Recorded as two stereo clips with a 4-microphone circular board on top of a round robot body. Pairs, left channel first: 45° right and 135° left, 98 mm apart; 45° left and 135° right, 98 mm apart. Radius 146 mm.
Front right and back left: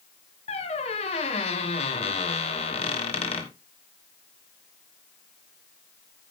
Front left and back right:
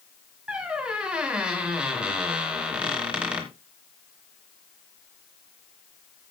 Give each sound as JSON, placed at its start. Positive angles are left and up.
{"t": 0.5, "sound": "a squeak", "azimuth_deg": -55, "distance_m": 1.3}